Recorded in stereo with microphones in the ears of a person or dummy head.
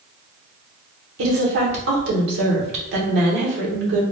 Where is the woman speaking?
65° right (ahead or behind), 1.2 m.